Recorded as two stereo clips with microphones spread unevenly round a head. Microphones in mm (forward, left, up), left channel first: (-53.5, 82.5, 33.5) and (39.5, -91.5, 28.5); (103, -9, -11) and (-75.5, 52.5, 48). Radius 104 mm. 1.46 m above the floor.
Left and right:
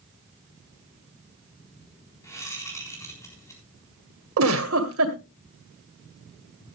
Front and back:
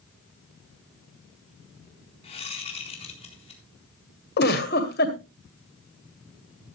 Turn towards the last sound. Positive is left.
turn(degrees=-70)